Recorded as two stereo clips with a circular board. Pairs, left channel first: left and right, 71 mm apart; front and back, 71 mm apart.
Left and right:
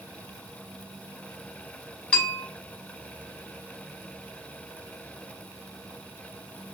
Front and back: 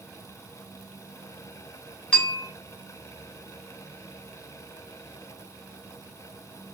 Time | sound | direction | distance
2.1 | a bell | 50° left | 0.8 m